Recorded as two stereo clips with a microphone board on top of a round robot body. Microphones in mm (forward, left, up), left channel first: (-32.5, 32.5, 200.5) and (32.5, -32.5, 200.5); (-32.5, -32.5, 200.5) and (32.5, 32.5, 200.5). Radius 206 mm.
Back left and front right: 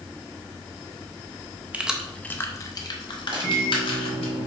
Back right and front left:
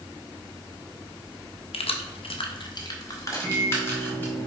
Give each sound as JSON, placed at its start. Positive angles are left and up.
{"t": 1.7, "sound": "keys jangling", "azimuth_deg": -120, "distance_m": 0.6}
{"t": 3.3, "sound": "a microwave", "azimuth_deg": -75, "distance_m": 1.7}